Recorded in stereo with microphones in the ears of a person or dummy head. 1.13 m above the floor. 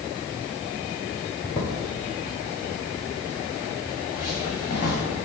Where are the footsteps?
10° left (ahead or behind), 1.2 m; by 5.0 s 45° left (ahead or behind), 4.5 m.